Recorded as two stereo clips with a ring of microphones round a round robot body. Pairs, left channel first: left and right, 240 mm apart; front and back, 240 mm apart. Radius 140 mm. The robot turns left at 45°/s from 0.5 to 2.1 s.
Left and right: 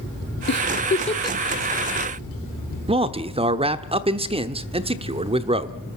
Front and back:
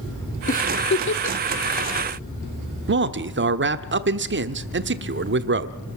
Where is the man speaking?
155° right, 1.1 m.